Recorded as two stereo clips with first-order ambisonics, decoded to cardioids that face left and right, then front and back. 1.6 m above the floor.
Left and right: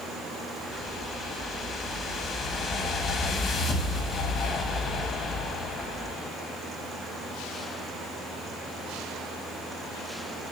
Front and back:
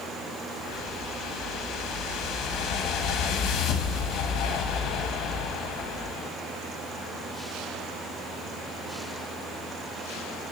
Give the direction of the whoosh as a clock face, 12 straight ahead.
11 o'clock.